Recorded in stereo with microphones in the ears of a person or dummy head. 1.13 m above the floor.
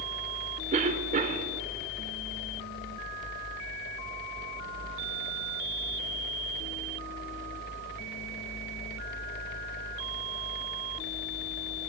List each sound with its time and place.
0.7 s a cough: 40° right (ahead or behind), 0.9 m